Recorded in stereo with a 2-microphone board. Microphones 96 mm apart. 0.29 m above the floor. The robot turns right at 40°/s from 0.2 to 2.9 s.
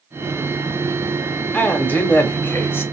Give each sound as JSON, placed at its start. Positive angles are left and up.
{"t": 1.5, "sound": "a man speaking", "side_deg": 15, "distance_m": 1.1}